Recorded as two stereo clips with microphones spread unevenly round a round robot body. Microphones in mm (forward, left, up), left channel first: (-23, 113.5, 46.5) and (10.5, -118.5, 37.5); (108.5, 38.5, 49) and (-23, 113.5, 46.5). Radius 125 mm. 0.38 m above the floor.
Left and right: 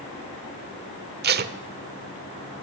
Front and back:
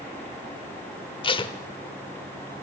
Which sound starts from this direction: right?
Tape being pulled, at 1.2 s.